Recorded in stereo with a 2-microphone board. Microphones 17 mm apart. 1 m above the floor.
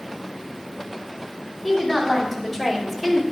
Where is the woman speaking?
5° left (ahead or behind), 2 m; by 3.2 s 5° right (ahead or behind), 1.3 m.